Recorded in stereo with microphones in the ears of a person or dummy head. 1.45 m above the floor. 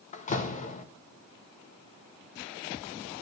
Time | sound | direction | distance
0.1 | a door slam | 35° left (ahead or behind) | 1.4 m